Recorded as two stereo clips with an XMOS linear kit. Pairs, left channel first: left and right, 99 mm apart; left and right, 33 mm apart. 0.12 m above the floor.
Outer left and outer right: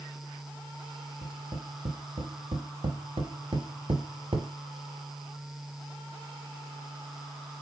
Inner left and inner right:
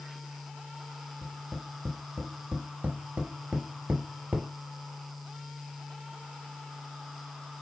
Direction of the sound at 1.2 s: 55° right (ahead or behind).